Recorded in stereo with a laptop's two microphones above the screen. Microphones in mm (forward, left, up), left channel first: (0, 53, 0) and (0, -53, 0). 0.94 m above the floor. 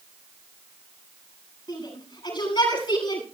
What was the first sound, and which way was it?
A shout, 50° left (ahead or behind).